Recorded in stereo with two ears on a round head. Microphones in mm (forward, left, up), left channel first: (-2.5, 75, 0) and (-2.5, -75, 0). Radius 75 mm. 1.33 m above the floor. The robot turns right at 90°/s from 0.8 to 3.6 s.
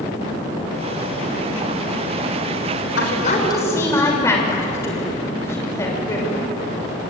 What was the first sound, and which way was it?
A woman speaking, 105° left.